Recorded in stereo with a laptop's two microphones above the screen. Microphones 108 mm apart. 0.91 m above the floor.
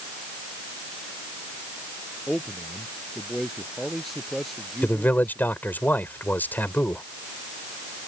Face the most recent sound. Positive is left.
turn(degrees=15)  # may be behind; listen again after turning